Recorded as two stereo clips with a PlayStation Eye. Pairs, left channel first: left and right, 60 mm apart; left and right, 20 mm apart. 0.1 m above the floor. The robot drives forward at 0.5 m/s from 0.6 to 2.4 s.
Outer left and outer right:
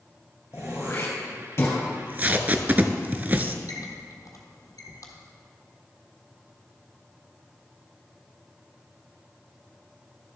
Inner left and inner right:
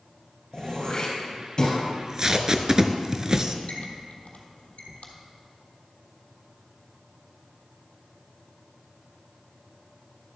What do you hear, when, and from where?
0.5 s throat clearing: 45° left (ahead or behind), 2.5 m; by 1.8 s 40° left (ahead or behind), 3 m
1.9 s tape being pulled: 25° right (ahead or behind), 0.6 m; by 3.6 s 30° right (ahead or behind), 0.5 m
3.7 s a squeak: 65° left (ahead or behind), 1.5 m